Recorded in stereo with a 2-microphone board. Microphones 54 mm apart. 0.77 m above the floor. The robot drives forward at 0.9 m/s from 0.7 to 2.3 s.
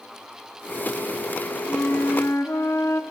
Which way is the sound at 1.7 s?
50° left (ahead or behind).